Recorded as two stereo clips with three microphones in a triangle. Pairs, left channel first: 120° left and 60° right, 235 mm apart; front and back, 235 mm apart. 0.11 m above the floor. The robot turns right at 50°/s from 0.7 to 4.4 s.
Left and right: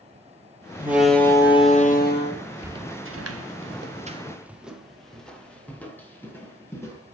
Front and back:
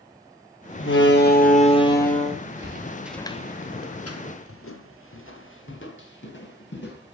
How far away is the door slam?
About 2 m.